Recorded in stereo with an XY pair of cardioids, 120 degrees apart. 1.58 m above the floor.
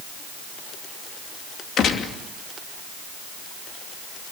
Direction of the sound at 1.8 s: 55° left.